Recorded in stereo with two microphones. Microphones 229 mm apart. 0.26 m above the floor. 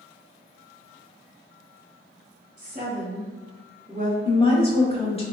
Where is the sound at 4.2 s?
25° left (ahead or behind), 1.0 m.